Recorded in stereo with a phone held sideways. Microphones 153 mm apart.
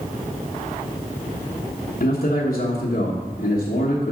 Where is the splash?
I don't hear a splash.